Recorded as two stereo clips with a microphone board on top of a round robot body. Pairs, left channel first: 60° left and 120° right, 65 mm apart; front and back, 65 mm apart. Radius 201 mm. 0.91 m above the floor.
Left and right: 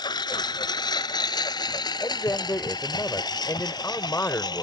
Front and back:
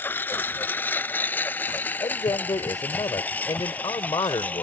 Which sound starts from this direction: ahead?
A man speaking, at 2.0 s.